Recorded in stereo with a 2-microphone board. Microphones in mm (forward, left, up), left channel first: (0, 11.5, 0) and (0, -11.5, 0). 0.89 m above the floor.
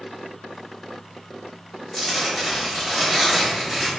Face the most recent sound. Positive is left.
turn(degrees=10)  # may be behind; listen again after turning